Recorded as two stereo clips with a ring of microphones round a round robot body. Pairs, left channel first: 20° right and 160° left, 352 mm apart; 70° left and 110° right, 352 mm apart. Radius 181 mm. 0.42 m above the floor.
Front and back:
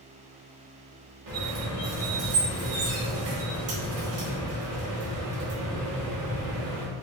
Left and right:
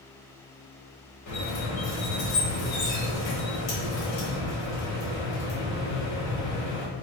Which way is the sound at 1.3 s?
110° left.